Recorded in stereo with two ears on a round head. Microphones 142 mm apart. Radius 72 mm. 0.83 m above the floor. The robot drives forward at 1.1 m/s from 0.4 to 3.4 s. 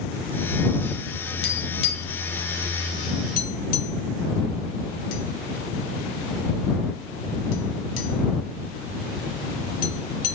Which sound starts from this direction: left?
Tapping, at 1.4 s.